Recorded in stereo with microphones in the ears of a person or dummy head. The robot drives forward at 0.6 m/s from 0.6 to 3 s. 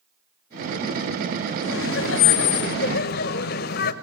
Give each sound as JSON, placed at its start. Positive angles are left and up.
{"t": 1.6, "sound": "laughter", "side_deg": 65, "distance_m": 1.3}